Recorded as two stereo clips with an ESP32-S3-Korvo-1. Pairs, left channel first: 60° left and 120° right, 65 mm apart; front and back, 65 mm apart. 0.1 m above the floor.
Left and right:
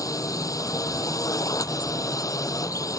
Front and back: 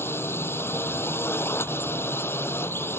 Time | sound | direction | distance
0.0 | a drone | 45° left | ?